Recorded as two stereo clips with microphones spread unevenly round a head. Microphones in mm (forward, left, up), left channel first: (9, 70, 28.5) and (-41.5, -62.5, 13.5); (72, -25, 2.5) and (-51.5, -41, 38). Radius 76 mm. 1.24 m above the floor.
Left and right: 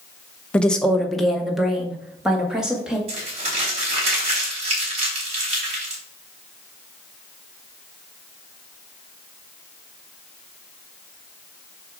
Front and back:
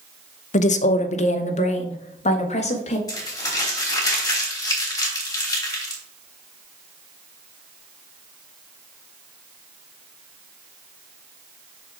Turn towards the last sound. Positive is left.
turn(degrees=-60)